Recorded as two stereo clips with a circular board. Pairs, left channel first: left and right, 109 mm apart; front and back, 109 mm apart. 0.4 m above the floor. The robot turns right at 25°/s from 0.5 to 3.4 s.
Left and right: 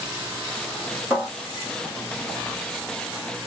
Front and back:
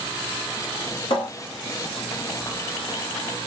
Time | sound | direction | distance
1.1 | a cupboard door | 20° right | 1.4 m